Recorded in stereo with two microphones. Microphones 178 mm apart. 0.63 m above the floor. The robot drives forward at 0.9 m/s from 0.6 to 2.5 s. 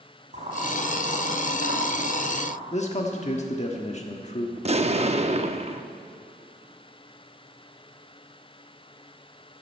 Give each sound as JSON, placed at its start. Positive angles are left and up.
{"t": 0.3, "sound": "boiling", "side_deg": -45, "distance_m": 3.5}
{"t": 2.7, "sound": "a man speaking", "side_deg": 40, "distance_m": 1.1}
{"t": 4.6, "sound": "an explosion", "side_deg": -40, "distance_m": 0.6}